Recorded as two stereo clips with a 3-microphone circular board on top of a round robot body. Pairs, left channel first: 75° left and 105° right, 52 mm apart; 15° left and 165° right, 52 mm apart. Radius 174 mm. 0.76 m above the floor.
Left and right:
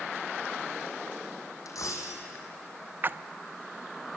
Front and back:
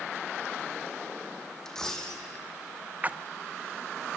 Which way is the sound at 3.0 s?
125° right.